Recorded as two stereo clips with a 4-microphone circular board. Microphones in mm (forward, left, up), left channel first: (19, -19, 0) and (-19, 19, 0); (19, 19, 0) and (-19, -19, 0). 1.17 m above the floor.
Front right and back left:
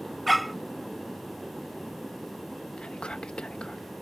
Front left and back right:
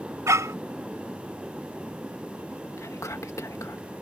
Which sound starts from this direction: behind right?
A dog barking, at 0.3 s.